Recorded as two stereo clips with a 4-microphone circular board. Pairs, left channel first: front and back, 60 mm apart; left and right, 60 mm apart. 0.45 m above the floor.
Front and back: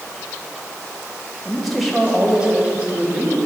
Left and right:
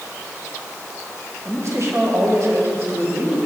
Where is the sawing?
No sawing in this recording.